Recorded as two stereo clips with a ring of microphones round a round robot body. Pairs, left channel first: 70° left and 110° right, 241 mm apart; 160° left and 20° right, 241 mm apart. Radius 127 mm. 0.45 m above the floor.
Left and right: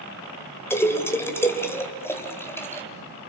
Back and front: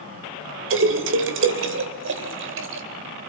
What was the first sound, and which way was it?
A splash, 10° right.